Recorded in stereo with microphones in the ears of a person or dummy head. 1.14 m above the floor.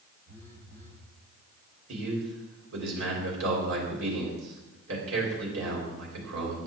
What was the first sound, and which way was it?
A phone buzzing, 40° right (ahead or behind).